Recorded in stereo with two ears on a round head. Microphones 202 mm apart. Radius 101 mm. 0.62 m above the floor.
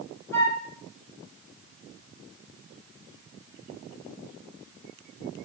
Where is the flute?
15° left (ahead or behind), 1.7 m.